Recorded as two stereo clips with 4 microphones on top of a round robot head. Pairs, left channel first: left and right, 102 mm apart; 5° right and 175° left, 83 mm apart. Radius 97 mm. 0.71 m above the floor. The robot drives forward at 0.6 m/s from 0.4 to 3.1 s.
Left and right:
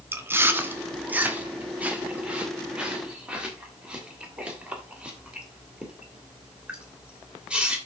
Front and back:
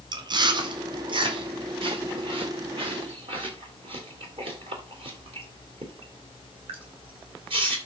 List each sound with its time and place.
0.1 s chewing: 155° right, 1.4 m; by 7.8 s 170° right, 3 m